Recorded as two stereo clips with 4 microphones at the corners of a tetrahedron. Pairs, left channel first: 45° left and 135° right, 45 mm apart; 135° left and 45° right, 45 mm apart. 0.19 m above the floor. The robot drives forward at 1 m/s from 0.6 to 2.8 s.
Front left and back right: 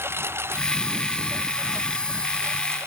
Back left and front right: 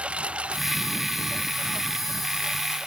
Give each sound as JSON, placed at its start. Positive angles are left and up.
{"t": 0.0, "sound": "a lawn mower", "azimuth_deg": -110}